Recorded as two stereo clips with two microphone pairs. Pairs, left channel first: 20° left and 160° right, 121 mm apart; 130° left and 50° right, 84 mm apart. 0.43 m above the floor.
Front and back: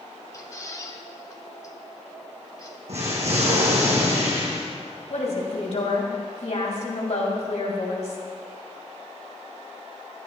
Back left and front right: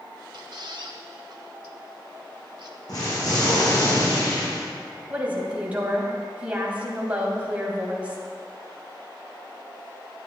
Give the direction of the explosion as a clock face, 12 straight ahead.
6 o'clock.